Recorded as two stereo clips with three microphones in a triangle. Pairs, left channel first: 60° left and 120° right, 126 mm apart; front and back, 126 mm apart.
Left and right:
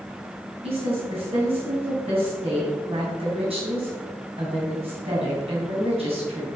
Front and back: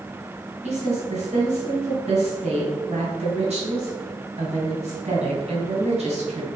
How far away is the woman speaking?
About 3 m.